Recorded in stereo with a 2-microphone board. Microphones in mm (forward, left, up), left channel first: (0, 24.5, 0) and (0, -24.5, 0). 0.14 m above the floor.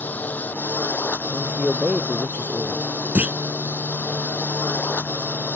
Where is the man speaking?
30° right (ahead or behind).